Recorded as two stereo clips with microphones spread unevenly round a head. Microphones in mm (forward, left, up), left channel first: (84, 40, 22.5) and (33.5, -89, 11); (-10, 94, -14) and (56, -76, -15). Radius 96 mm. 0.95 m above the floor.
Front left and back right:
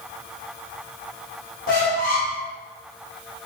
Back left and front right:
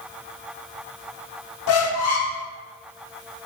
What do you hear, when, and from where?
1.7 s a squeak: 115° left, 0.7 m